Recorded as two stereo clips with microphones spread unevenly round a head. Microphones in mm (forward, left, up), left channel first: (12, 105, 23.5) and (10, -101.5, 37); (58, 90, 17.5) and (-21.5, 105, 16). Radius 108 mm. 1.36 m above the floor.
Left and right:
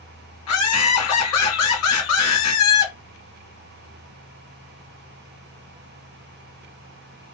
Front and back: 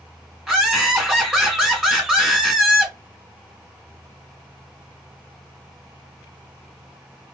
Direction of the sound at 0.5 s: 85° left.